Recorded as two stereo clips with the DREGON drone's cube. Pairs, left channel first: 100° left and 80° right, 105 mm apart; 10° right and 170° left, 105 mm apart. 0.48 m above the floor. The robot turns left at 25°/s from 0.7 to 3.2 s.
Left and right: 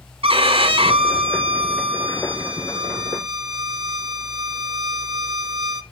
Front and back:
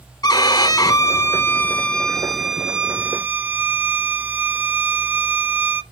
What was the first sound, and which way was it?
A violin, 60° right.